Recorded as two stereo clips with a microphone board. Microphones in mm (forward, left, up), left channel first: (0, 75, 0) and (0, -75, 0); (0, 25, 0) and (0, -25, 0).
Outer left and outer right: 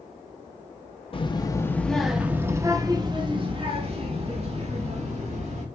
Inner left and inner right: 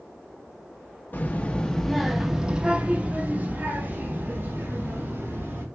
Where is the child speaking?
40° left (ahead or behind), 0.7 m; by 5.6 s 55° right (ahead or behind), 2 m.